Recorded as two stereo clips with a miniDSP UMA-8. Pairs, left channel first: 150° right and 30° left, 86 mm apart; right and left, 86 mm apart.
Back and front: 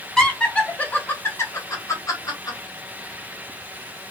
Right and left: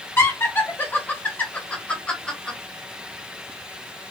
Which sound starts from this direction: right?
Laughter, at 0.2 s.